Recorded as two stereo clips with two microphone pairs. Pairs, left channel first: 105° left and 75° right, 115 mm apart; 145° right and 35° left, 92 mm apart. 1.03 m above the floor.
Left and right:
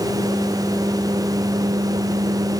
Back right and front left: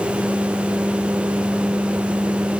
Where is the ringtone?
I don't hear a ringtone.